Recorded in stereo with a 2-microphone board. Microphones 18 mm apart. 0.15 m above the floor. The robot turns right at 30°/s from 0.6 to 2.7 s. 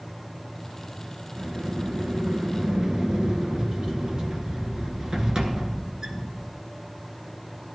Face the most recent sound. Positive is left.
turn(degrees=-55)